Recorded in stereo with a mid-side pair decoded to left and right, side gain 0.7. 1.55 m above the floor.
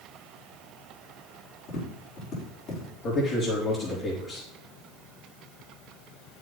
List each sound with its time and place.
1.7 s tapping: 50° left, 4 m
3.0 s a man speaking: 50° left, 3 m